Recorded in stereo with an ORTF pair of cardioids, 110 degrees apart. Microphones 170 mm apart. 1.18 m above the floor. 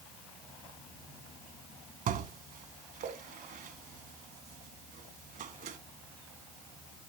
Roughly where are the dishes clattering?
Ahead right.